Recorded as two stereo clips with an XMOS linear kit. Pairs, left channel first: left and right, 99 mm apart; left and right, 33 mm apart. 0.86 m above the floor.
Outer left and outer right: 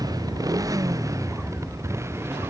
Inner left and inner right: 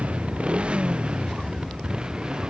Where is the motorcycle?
40° right (ahead or behind); by 2.5 s 25° right (ahead or behind).